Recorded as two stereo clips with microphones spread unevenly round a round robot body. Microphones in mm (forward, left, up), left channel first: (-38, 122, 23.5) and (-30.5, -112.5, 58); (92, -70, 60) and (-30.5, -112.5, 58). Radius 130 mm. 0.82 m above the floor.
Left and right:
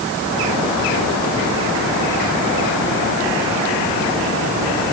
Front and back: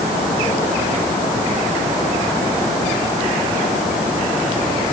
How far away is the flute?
No flute in this recording.